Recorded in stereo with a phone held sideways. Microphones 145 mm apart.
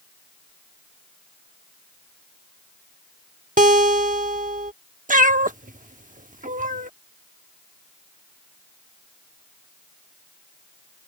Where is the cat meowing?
65° right (ahead or behind).